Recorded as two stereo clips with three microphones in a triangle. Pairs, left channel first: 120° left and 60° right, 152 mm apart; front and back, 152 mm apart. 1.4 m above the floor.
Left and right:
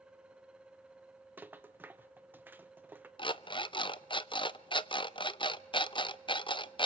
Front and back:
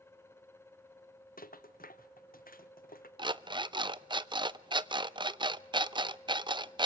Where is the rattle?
20° left, 1.1 m.